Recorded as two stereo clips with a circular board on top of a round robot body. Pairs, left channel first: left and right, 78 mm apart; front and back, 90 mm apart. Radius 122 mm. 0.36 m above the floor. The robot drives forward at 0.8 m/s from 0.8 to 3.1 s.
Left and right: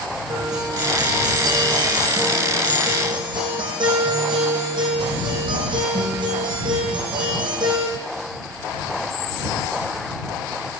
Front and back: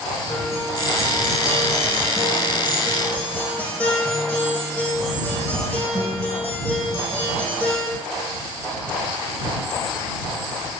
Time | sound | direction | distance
0.3 | a guitar | 55° right | 5 m